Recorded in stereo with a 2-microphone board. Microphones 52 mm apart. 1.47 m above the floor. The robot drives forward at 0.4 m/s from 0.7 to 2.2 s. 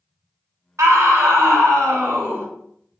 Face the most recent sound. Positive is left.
turn(degrees=-55)  # may be behind; listen again after turning